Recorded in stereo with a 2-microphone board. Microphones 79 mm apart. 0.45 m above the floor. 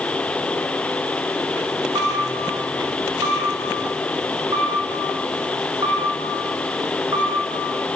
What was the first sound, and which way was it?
A camera shutter, 80° right.